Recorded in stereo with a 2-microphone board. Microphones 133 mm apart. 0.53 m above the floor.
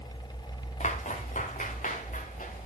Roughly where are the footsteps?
Left.